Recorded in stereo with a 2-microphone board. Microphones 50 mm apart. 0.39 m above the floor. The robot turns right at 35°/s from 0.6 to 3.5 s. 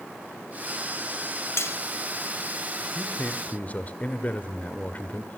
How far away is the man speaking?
About 1.4 m.